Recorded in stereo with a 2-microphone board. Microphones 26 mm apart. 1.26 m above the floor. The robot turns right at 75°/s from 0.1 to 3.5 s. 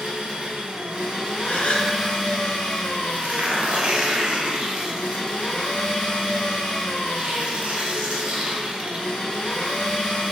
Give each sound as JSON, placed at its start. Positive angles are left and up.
{"t": 0.0, "sound": "an engine running", "azimuth_deg": -125, "distance_m": 1.2}
{"t": 1.4, "sound": "a gasp", "azimuth_deg": 110, "distance_m": 0.5}
{"t": 3.1, "sound": "tearing paper", "side_deg": -70, "distance_m": 0.7}